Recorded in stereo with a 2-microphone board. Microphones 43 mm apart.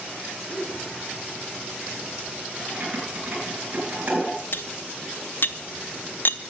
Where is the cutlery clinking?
50° left (ahead or behind), 0.5 m.